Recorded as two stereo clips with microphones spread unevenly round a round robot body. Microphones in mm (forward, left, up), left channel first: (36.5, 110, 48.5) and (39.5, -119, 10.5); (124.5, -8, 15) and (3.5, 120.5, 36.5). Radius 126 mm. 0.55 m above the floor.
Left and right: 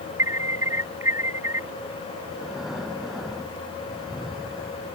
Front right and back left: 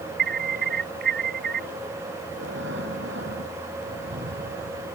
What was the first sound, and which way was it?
An alarm, 170° right.